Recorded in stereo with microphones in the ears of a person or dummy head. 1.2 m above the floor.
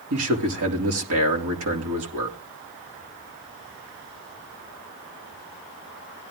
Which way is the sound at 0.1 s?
70° right (ahead or behind).